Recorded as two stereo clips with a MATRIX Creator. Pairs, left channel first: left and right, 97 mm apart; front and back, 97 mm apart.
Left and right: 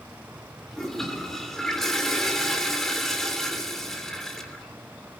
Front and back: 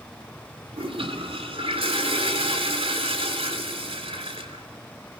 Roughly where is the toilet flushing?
Behind.